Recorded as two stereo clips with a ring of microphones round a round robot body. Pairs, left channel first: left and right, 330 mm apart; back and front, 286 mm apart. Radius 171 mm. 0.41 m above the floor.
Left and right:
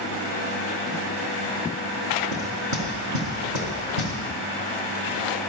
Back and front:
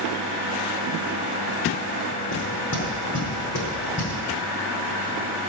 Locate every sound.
2.3 s knocking: 125° right, 4 m